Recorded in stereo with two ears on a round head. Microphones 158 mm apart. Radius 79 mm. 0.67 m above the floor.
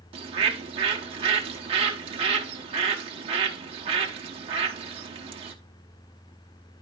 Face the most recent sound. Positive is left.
turn(degrees=-30)  # may be behind; listen again after turning